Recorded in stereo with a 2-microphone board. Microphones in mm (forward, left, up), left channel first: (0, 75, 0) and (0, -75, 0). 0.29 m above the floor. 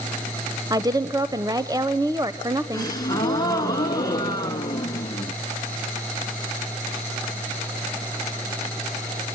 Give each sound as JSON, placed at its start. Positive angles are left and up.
{"t": 0.7, "sound": "a woman speaking", "side_deg": -25, "distance_m": 1.0}
{"t": 2.7, "sound": "a gasp", "side_deg": 25, "distance_m": 2.0}